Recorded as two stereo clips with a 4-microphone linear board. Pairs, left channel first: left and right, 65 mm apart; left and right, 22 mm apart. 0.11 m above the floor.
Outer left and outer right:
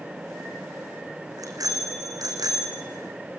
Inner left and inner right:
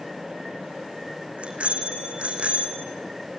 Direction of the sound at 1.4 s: 65° right (ahead or behind).